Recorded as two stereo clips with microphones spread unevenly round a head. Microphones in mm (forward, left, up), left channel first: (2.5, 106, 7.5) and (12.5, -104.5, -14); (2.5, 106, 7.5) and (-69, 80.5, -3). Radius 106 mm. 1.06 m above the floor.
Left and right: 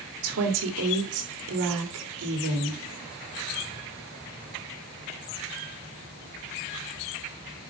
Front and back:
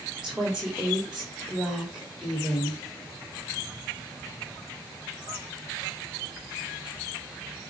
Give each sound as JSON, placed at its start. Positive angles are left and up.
{"t": 0.2, "sound": "a woman speaking", "azimuth_deg": -75, "distance_m": 3.0}